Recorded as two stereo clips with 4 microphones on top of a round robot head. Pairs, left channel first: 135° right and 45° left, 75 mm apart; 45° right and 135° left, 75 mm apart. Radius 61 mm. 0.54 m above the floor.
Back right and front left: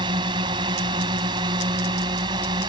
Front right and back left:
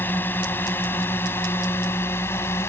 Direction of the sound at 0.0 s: 20° left.